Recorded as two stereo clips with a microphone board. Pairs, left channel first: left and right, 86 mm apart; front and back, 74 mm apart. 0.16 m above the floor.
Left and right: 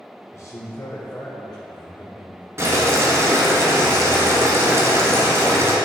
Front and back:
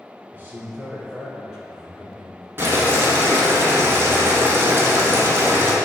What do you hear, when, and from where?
0.3 s a man speaking: 130° left, 1.4 m; by 2.5 s 85° left, 2.5 m
2.6 s boiling: 135° right, 1.3 m